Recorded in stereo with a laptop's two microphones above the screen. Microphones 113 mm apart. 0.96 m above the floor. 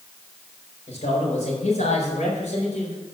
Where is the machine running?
I don't hear a machine running.